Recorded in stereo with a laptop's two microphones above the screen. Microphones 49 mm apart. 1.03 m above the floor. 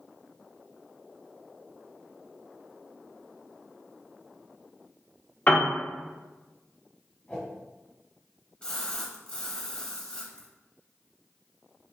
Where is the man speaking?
I don't hear a man speaking.